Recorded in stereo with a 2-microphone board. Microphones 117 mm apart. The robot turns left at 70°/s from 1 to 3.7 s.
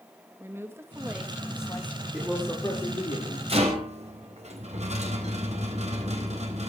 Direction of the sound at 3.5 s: 55° right (ahead or behind).